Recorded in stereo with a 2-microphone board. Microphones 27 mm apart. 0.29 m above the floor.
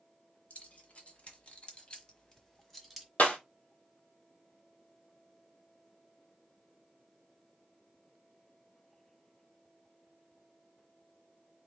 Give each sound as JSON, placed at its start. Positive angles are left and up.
{"t": 0.5, "sound": "keys jangling", "side_deg": 60, "distance_m": 1.8}
{"t": 3.2, "sound": "breaking glass", "side_deg": 80, "distance_m": 1.4}